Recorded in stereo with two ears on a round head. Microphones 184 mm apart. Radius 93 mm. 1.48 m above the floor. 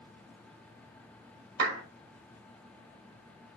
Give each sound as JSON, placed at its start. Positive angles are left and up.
{"t": 1.6, "sound": "a clap", "side_deg": -75, "distance_m": 4.0}